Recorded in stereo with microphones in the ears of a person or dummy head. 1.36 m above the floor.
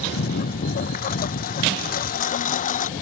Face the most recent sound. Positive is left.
turn(degrees=35)  # may be behind; listen again after turning